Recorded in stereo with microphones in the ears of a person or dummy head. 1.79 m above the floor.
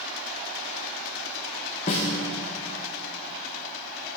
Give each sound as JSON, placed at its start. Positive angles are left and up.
{"t": 1.9, "sound": "a snare drum", "side_deg": 25, "distance_m": 0.9}